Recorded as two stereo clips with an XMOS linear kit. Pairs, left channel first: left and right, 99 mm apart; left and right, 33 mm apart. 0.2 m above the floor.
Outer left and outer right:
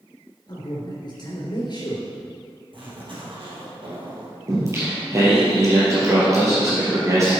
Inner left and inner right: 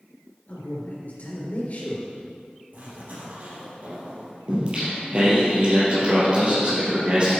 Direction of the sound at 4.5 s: 30° right (ahead or behind).